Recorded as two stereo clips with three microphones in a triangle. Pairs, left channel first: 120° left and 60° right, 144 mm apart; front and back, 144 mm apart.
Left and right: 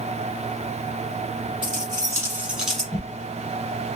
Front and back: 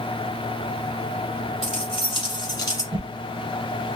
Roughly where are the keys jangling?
Ahead.